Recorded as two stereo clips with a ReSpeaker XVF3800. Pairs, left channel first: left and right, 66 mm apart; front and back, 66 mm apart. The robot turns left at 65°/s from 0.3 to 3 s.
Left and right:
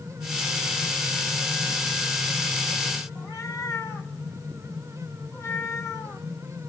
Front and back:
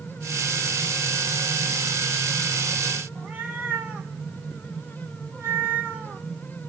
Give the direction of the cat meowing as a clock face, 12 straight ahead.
8 o'clock.